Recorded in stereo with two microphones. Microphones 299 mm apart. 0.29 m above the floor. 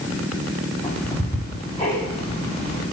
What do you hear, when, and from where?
0.8 s ticking: 15° left (ahead or behind), 2.5 m